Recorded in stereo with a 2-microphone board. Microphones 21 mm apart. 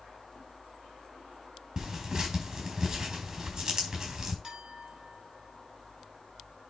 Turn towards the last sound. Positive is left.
turn(degrees=-50)  # may be behind; listen again after turning